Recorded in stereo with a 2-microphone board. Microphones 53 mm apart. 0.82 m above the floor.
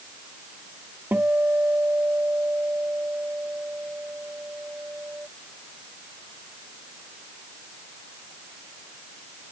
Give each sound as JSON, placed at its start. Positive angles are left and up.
{"t": 1.1, "sound": "a guitar", "side_deg": -35}